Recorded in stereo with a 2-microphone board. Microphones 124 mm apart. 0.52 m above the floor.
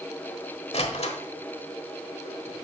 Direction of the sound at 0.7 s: 55° left (ahead or behind).